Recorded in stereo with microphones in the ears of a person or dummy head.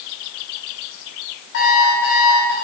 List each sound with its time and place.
1.5 s an alarm clock: 60° left (ahead or behind), 5.5 m